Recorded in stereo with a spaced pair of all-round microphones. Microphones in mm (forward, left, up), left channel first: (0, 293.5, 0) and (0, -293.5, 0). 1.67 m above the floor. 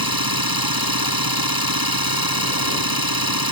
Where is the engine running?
35° right (ahead or behind).